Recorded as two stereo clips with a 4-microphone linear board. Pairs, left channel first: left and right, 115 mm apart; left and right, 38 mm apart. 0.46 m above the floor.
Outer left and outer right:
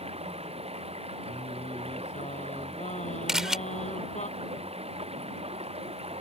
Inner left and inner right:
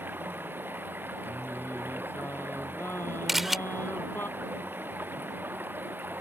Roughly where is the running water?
Right.